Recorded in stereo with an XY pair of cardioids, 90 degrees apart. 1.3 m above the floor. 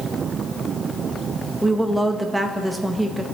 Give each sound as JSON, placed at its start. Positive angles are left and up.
{"t": 1.6, "sound": "a woman speaking", "azimuth_deg": -5, "distance_m": 1.6}